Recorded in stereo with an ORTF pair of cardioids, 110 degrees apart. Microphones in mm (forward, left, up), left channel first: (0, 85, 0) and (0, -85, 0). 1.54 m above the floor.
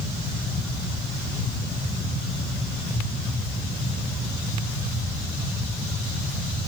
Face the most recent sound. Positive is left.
No sound to turn to.